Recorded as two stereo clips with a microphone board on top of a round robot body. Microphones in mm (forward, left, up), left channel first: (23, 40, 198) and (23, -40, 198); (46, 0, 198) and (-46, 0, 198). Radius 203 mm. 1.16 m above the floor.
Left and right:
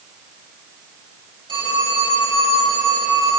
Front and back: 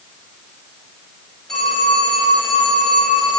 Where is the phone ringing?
85° right, 6 m.